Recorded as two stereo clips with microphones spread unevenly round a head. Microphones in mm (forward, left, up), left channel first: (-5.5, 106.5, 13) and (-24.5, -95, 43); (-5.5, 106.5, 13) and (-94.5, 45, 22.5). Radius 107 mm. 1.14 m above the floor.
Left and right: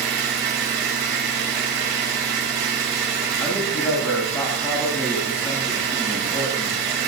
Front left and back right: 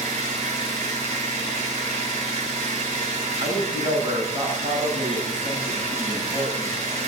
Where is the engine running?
125° right, 8.5 m.